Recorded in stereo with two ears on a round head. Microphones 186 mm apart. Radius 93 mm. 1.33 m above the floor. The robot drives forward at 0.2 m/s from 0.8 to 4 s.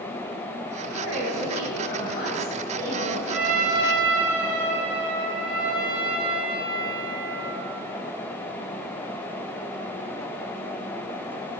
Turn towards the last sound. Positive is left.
turn(degrees=-5)  # may be behind; listen again after turning